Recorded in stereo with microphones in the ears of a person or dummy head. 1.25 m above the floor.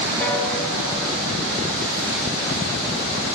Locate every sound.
0.2 s a piano: 10° left (ahead or behind), 0.8 m